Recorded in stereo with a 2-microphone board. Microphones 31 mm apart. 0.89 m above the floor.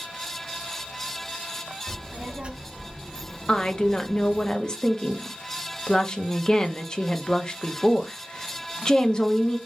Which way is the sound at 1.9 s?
45° right (ahead or behind).